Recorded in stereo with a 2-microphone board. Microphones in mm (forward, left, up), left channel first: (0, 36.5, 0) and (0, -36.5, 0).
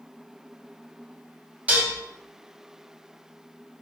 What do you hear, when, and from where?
1.7 s dishes clattering: 20° right (ahead or behind), 0.8 m